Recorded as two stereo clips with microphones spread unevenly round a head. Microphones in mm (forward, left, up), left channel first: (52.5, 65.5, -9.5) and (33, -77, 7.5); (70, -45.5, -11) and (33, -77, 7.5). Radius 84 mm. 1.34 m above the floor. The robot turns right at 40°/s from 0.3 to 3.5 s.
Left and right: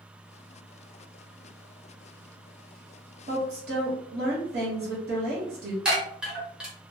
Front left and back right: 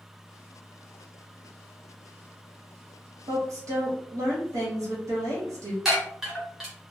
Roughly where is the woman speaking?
Behind right.